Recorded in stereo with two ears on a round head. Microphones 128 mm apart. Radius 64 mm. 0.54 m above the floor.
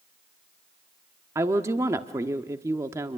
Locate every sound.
1.4 s a woman speaking: 20° right (ahead or behind), 1.0 m